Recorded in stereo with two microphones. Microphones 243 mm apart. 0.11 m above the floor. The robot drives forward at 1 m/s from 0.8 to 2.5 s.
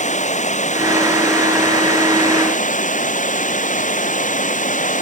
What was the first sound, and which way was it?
Running water, 30° left (ahead or behind).